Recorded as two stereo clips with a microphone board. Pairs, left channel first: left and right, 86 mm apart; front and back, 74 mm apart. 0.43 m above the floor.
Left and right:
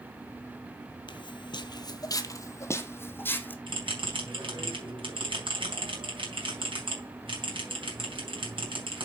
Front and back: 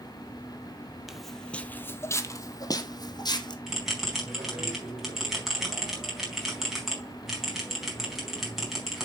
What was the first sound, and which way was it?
Footsteps, 95° left.